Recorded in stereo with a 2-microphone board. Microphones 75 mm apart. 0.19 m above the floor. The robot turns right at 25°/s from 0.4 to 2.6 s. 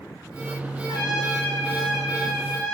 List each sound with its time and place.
0.9 s a trumpet: 105° left, 8.5 m; by 2.7 s 145° left, 8.5 m